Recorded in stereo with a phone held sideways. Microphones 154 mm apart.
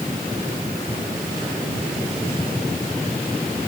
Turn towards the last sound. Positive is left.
No sound to turn to.